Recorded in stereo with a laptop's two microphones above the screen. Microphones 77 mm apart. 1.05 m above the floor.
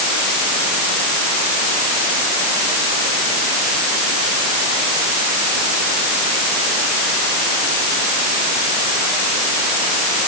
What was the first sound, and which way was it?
Only background noise.